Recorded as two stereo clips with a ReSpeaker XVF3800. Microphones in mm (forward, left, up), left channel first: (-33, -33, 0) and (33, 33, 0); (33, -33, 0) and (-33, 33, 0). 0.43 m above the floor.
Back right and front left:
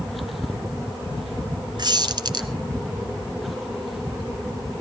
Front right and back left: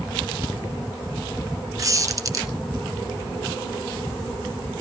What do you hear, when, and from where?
1.8 s a squeak: 80° left, 1.2 m